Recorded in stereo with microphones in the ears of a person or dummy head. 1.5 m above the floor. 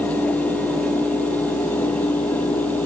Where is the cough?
No cough in this recording.